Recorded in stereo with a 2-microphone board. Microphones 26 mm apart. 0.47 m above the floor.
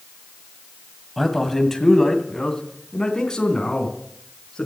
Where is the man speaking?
5° left (ahead or behind), 2 m; by 4.7 s 30° left (ahead or behind), 4.5 m.